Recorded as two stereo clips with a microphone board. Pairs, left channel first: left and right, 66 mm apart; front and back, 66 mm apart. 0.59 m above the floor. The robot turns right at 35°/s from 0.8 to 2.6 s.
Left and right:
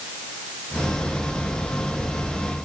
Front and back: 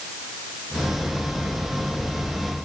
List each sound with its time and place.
Only background noise.